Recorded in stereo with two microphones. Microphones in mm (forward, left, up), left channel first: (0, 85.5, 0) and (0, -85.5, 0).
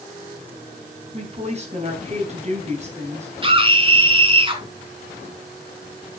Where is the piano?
I don't hear a piano.